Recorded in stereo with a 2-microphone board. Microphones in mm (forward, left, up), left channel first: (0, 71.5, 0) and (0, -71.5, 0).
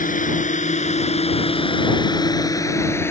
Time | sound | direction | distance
0.0 | a drone | 65° left (ahead or behind) | ?